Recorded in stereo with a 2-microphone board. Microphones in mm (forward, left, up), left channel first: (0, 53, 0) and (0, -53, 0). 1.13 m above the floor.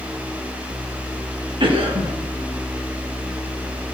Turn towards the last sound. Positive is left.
turn(degrees=-55)  # may be behind; listen again after turning